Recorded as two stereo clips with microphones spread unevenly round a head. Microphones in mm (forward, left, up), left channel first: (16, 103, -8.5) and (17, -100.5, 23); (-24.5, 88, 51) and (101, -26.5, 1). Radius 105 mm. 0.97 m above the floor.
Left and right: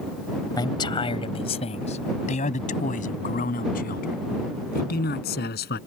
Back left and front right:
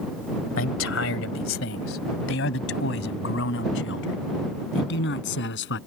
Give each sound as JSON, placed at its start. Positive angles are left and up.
{"t": 0.6, "sound": "a man speaking", "azimuth_deg": 160}